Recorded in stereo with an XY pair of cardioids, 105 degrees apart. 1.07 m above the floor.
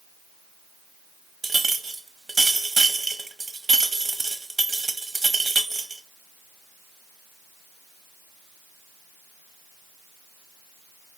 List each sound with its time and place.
1.4 s a clink: 25° right, 1.1 m